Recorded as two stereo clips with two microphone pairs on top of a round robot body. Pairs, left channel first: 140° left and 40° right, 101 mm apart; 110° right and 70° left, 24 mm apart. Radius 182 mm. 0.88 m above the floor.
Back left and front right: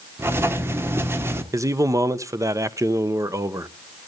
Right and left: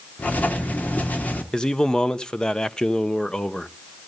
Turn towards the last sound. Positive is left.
turn(degrees=-65)